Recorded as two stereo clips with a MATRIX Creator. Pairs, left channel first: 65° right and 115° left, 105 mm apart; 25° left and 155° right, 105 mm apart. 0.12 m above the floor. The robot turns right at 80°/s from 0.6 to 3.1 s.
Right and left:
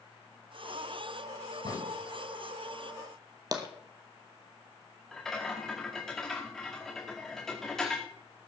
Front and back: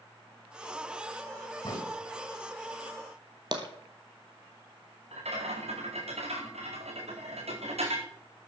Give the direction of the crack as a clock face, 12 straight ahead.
1 o'clock.